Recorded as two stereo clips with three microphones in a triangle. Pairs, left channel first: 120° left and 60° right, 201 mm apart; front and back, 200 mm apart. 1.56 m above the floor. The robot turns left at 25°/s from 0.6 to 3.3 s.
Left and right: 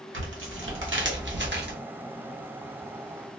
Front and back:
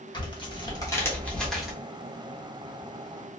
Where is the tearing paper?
65° right, 1.0 m; by 1.7 s 95° right, 1.0 m.